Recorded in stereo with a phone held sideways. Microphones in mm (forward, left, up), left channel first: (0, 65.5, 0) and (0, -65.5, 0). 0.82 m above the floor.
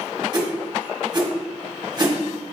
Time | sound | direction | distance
0.3 | a whoosh | 35° right (ahead or behind) | 1.1 m